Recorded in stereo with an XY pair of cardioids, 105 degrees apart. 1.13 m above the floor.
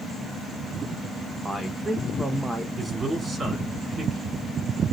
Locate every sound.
1.4 s a man speaking: 10° right, 0.7 m
2.8 s a man speaking: 30° right, 4.5 m